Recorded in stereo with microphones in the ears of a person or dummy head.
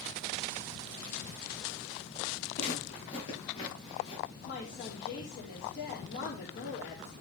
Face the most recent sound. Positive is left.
turn(degrees=65)  # may be behind; listen again after turning